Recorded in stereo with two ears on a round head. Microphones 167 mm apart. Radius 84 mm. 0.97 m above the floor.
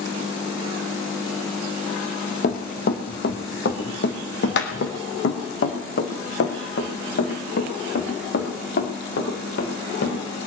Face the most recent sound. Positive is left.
turn(degrees=60)  # may be behind; listen again after turning